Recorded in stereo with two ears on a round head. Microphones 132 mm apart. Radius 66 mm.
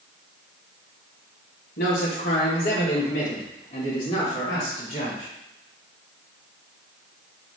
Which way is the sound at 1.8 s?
70° left (ahead or behind).